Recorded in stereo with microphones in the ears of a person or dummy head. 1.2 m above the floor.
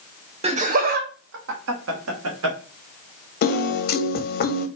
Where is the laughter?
30° right (ahead or behind), 0.8 m; by 2.6 s 80° right, 1.4 m.